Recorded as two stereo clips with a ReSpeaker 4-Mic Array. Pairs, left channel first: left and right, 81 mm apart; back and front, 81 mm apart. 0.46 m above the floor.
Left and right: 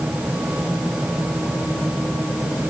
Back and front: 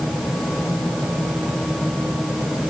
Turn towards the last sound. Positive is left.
No sound to turn to.